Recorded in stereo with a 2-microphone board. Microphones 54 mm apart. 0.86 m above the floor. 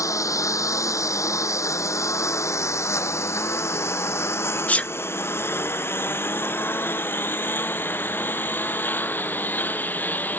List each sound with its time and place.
0.0 s a lawn mower: 85° left; by 10.4 s 35° left (ahead or behind)
4.7 s a sneeze: 25° left (ahead or behind)